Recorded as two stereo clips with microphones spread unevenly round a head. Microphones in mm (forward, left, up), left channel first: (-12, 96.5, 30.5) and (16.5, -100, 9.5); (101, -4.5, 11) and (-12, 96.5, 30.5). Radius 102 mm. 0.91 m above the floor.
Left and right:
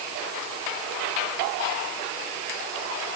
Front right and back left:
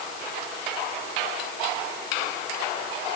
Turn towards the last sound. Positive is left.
No sound to turn to.